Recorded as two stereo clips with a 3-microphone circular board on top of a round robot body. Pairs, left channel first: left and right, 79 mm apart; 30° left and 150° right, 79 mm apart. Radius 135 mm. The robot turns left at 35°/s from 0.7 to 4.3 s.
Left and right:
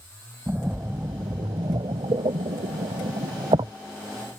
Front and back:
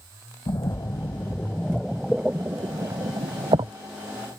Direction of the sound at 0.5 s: 20° right.